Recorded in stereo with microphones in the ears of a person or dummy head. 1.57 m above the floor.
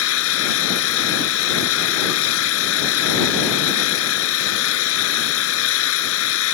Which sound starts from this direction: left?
An engine running, at 0.0 s.